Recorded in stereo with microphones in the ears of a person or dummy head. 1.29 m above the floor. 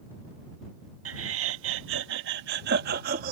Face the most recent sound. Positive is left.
turn(degrees=-55)  # may be behind; listen again after turning